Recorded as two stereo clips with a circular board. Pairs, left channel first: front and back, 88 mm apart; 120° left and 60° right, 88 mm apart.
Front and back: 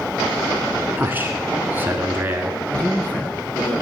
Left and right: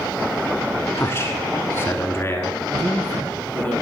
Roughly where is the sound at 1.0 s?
Behind left.